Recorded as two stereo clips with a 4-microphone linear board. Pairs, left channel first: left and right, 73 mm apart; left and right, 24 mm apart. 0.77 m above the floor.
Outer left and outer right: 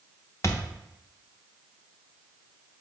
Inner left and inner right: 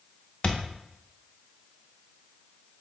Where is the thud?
40° left (ahead or behind), 0.6 m.